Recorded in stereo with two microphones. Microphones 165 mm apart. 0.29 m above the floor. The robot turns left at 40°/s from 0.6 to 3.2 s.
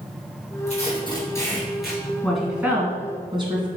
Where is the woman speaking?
5° left (ahead or behind), 2.5 m; by 3.7 s 30° right (ahead or behind), 2.5 m.